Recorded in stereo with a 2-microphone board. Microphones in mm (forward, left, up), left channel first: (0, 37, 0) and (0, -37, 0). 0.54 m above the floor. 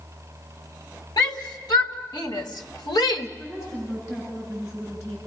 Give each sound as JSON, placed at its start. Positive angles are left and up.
{"t": 1.2, "sound": "a shout", "side_deg": 70, "distance_m": 2.5}
{"t": 3.4, "sound": "a woman speaking", "side_deg": 35, "distance_m": 7.0}